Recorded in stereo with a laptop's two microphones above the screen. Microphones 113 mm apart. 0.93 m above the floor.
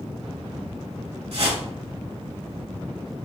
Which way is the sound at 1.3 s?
60° right (ahead or behind).